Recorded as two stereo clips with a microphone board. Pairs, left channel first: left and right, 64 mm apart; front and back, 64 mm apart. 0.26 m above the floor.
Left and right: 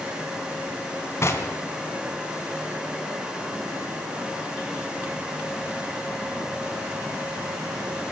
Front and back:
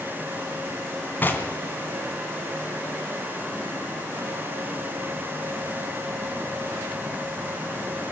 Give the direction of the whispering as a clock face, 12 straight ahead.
No whispering in this recording.